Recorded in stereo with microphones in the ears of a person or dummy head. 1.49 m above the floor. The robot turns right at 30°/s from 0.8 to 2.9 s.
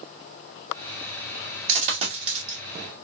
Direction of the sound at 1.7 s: 45° right (ahead or behind).